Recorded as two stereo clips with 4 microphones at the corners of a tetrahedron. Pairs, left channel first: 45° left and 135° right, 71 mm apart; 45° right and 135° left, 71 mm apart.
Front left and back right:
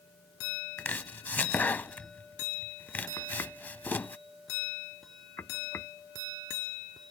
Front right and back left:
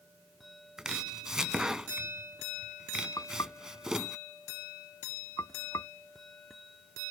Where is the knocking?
10° right.